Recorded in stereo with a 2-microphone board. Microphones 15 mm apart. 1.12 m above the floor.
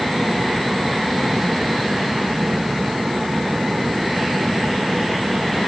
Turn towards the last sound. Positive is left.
No sound to turn to.